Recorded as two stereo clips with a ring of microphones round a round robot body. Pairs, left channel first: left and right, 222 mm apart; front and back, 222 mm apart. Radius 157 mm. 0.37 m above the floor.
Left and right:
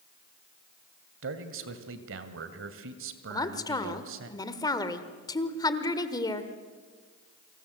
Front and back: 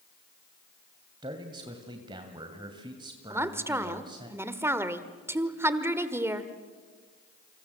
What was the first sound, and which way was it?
A man speaking, 110° right.